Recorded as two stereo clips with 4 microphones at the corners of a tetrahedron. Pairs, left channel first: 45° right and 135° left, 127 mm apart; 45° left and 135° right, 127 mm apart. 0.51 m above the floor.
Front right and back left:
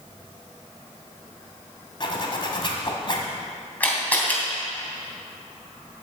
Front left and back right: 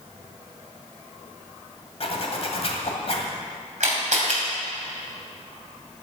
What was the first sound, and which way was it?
A zipper, 5° left.